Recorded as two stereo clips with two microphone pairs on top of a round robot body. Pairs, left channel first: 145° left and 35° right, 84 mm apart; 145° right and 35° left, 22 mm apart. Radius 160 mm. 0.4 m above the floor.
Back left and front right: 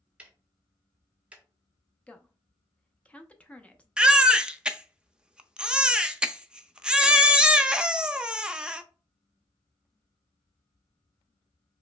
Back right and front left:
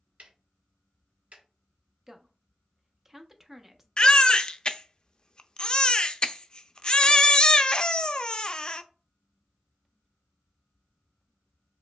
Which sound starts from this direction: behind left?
A woman speaking, at 2.1 s.